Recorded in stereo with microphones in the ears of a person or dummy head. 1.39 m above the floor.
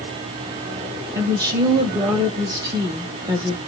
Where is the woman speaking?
20° right (ahead or behind), 0.8 m.